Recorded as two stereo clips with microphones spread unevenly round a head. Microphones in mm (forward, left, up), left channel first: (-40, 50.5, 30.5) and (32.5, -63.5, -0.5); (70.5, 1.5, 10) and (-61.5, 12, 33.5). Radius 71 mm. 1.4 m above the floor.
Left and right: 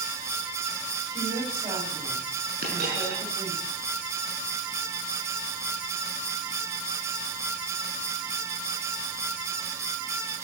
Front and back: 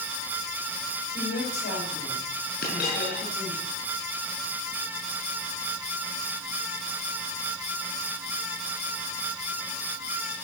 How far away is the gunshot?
No gunshot in this recording.